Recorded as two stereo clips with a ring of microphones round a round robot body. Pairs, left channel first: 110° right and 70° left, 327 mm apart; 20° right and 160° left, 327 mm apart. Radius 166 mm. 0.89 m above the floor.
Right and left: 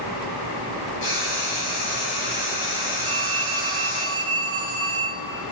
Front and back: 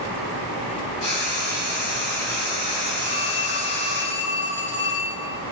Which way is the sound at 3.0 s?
5° left.